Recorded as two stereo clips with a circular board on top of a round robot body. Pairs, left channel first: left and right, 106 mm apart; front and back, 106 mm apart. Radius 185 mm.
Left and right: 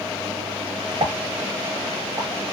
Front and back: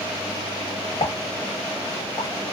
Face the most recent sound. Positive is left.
turn(degrees=-40)